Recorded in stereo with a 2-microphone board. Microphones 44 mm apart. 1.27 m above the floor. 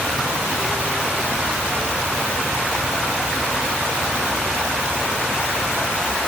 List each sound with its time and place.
Only background noise.